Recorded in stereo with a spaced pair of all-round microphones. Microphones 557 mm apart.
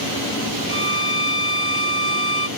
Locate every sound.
0.7 s a violin: 65° right (ahead or behind)